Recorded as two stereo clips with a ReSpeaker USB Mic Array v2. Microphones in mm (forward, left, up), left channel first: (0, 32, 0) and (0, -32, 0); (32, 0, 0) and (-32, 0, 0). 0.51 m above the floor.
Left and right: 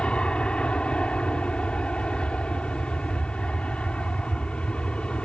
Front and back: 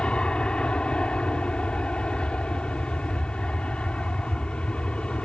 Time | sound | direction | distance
0.0 | an aircraft | 45° left | ?